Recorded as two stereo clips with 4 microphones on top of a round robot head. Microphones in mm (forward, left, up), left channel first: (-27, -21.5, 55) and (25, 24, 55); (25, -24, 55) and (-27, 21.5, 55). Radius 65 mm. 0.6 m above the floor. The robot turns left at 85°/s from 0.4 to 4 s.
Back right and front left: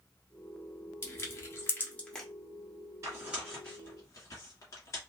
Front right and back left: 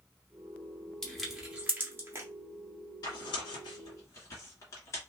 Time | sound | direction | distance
1.0 | crushing | 110° right | 1.4 m
3.0 | tearing paper | 5° right | 1.5 m